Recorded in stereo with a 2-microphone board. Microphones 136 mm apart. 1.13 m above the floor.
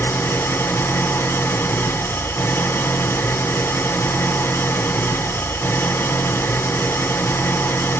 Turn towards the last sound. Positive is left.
turn(degrees=15)  # may be behind; listen again after turning